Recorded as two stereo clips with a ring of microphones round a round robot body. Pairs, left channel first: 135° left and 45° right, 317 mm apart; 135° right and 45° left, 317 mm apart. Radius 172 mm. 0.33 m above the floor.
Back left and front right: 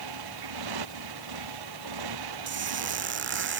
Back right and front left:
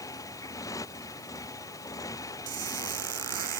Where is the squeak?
10° left.